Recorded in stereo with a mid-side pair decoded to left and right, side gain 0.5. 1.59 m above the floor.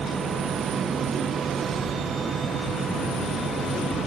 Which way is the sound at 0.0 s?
45° right.